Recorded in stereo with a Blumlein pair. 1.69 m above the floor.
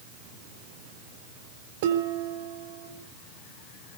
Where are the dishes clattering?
50° right, 3.5 m.